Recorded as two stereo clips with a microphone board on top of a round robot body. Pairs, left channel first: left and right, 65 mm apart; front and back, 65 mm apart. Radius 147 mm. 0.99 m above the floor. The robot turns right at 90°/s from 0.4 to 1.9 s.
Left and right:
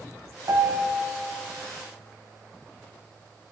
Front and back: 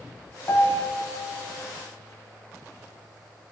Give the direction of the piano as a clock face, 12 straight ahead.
2 o'clock.